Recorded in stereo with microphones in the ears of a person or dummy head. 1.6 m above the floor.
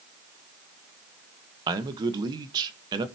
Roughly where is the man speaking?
Right.